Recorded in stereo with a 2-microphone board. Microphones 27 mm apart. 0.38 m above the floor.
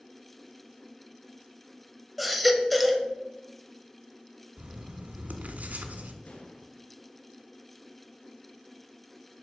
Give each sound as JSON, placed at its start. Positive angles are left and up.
{"t": 2.2, "sound": "a baby crying", "side_deg": 0, "distance_m": 0.9}
{"t": 4.6, "sound": "writing", "side_deg": -85, "distance_m": 1.1}
{"t": 6.2, "sound": "an explosion", "side_deg": 80, "distance_m": 3.0}